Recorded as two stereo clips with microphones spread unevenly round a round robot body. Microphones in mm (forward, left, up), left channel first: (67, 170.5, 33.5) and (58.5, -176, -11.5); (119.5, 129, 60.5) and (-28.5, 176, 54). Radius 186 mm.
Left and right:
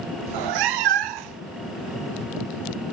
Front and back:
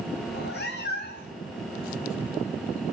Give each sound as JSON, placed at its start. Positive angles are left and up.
{"t": 0.3, "sound": "a cat meowing", "azimuth_deg": -70, "distance_m": 0.8}